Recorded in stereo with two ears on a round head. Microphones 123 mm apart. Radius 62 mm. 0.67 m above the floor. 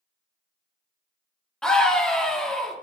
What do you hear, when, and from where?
1.6 s a scream: 5° left (ahead or behind), 1.5 m